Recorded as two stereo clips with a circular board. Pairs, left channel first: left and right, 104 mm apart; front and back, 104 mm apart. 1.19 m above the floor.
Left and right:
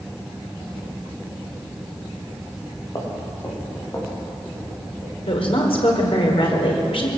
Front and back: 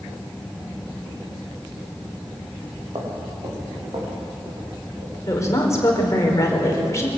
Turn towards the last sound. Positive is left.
turn(degrees=60)